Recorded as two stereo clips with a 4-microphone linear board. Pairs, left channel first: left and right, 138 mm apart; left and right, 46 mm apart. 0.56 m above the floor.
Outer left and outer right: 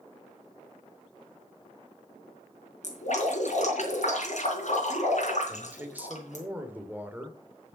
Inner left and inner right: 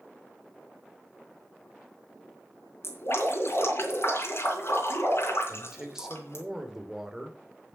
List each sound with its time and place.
2.8 s dripping: 60° left (ahead or behind), 3.5 m
5.5 s a man speaking: 10° right (ahead or behind), 2 m